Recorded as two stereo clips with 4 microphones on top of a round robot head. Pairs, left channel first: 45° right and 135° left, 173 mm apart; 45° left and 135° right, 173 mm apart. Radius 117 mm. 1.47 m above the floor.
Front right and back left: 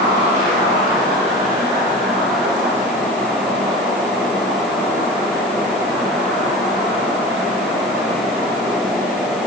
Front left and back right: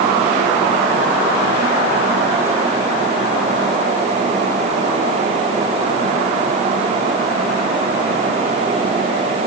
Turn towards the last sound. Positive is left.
No sound to turn to.